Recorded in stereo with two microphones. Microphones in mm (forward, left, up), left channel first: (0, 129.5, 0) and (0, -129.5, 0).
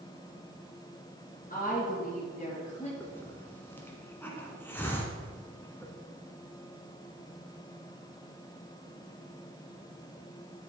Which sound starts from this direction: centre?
A hiss, at 3.0 s.